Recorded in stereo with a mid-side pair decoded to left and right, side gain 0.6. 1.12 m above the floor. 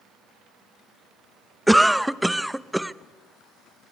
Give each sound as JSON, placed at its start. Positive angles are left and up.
{"t": 1.7, "sound": "a cough", "azimuth_deg": -5, "distance_m": 0.7}